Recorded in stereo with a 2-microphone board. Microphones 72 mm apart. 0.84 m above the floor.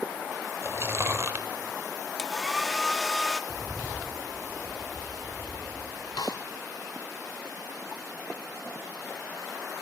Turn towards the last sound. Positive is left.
turn(degrees=70)  # may be behind; listen again after turning